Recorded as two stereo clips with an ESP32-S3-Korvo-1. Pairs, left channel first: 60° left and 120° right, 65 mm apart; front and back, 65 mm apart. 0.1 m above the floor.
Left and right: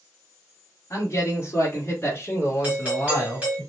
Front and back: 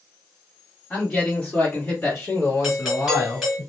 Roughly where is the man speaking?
Left.